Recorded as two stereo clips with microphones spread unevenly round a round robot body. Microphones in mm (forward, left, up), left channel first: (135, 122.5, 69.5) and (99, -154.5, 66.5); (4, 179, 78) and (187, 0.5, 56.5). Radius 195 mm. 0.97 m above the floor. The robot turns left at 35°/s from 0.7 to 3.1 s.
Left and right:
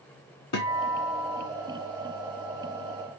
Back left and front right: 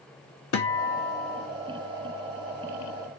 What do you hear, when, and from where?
0.5 s a guitar: 125° left, 0.6 m; by 1.5 s 95° left, 0.6 m